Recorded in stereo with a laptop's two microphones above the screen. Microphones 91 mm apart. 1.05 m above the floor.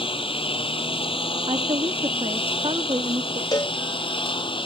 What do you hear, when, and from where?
0.0 s a lawn mower: 80° left; by 4.7 s 70° left (ahead or behind)
1.5 s a woman speaking: 70° right (ahead or behind)
3.5 s a cowbell: 45° left (ahead or behind)